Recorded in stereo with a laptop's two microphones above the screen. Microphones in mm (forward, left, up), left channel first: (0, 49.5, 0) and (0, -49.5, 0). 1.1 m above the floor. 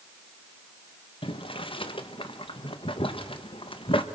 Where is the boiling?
60° left (ahead or behind), 1.5 m.